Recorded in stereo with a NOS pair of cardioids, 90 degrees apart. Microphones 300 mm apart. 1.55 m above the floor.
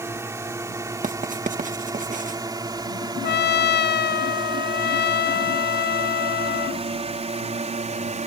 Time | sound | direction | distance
0.0 | a drone | 10° right | ?
1.0 | writing | 25° right | ?
3.2 | a trumpet | 35° left | ?